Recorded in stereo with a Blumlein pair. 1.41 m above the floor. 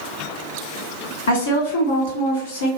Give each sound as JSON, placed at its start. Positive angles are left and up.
{"t": 1.3, "sound": "a woman speaking", "azimuth_deg": 65, "distance_m": 2.0}